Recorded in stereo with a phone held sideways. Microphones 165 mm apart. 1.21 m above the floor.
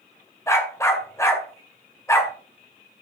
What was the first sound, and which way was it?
A dog barking, 15° left (ahead or behind).